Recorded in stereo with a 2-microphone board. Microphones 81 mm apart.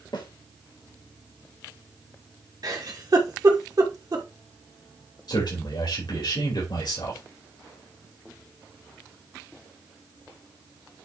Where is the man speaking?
60° left (ahead or behind), 4.5 m.